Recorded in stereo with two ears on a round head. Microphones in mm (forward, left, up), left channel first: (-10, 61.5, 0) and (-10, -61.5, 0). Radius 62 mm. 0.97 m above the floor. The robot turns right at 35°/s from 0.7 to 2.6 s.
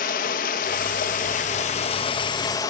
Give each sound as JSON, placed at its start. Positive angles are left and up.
{"t": 0.0, "sound": "running water", "azimuth_deg": 85, "distance_m": 0.9}